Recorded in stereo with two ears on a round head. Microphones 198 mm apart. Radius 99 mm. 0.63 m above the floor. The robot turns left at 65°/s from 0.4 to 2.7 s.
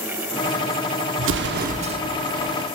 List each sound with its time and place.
1.2 s an explosion: 100° right, 0.9 m; by 2.0 s 155° right, 0.9 m